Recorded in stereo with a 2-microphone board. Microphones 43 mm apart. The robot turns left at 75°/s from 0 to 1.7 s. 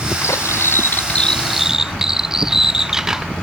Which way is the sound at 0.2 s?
100° left.